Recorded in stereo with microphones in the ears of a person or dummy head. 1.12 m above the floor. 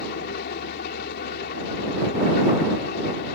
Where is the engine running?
55° left (ahead or behind).